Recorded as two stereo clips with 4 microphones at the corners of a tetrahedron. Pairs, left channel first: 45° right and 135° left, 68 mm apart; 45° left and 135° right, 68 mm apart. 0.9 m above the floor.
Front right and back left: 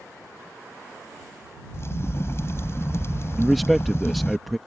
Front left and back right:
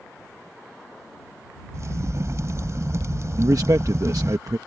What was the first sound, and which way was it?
A crack, 90° right.